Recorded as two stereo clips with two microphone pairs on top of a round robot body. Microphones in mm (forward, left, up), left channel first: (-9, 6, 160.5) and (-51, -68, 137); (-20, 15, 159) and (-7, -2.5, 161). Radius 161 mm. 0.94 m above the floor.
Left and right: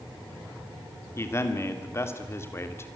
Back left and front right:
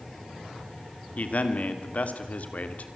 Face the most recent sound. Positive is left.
turn(degrees=125)